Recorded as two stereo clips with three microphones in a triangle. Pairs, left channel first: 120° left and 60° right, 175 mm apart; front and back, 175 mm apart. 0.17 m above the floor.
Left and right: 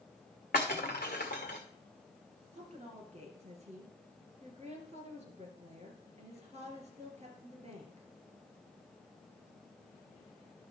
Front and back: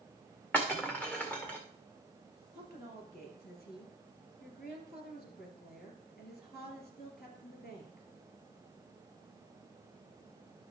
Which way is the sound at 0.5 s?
80° left.